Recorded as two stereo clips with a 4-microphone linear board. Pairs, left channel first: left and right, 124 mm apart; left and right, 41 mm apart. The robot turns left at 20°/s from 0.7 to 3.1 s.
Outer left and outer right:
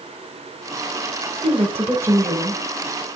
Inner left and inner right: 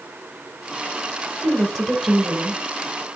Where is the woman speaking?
30° right (ahead or behind), 1.5 m; by 2.6 s 10° right (ahead or behind), 1.5 m.